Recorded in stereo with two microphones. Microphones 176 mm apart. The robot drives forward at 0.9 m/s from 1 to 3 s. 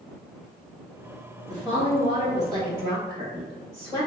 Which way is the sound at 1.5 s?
30° right (ahead or behind).